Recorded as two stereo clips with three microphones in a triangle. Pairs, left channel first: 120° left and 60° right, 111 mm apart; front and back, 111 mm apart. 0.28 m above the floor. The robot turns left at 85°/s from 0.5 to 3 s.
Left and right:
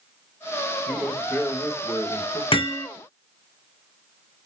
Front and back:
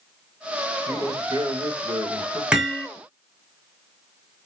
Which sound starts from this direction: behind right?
A man speaking, at 0.9 s.